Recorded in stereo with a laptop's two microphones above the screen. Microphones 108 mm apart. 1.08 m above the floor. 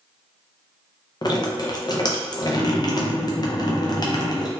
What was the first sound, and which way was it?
Dripping, 40° left (ahead or behind).